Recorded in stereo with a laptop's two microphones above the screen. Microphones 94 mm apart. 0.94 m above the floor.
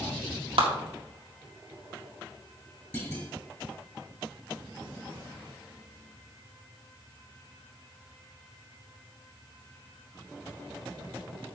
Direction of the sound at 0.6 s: 75° right (ahead or behind).